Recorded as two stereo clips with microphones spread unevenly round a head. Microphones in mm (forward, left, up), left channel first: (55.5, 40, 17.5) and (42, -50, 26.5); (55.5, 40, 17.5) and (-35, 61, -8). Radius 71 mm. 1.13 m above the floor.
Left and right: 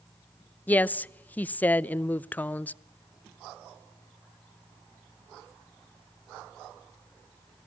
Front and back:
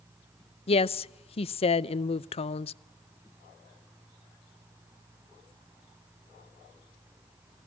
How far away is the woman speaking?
About 0.6 m.